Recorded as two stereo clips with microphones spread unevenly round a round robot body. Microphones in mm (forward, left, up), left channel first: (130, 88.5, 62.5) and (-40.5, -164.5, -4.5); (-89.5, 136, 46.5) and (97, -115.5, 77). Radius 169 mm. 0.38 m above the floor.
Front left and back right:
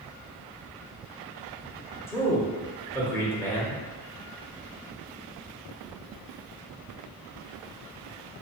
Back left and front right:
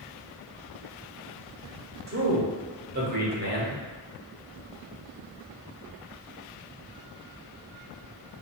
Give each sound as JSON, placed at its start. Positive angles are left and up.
{"t": 2.1, "sound": "a man speaking", "azimuth_deg": -45, "distance_m": 1.1}